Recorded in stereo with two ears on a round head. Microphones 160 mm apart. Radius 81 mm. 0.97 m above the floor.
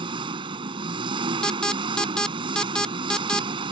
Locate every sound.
0.0 s an engine running: 30° right (ahead or behind)
1.4 s an alarm: 5° left (ahead or behind)